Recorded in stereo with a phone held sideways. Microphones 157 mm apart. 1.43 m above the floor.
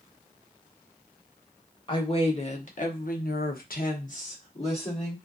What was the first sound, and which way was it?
A woman speaking, 35° left (ahead or behind).